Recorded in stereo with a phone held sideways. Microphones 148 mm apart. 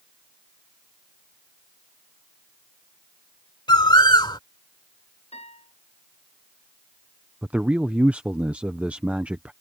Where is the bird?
30° left (ahead or behind).